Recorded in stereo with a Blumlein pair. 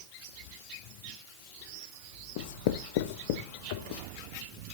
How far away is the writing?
About 0.9 m.